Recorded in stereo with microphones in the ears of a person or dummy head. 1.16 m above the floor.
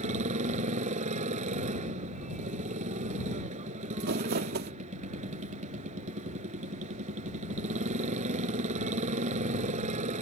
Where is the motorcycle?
40° right (ahead or behind).